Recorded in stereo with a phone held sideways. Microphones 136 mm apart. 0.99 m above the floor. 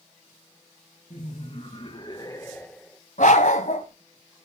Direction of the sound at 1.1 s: 55° left (ahead or behind).